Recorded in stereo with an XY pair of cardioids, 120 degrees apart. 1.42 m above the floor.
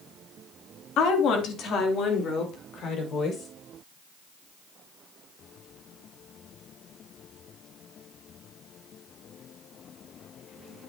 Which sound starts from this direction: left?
A woman speaking, at 1.0 s.